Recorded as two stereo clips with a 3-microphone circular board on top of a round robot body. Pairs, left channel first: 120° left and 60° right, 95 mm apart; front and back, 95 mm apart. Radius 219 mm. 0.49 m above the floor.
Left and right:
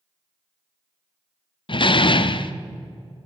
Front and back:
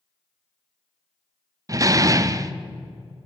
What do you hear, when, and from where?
1.7 s a door slam: 135° left, 1.3 m